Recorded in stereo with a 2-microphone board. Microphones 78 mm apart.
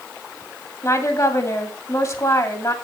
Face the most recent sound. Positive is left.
turn(degrees=45)  # may be behind; listen again after turning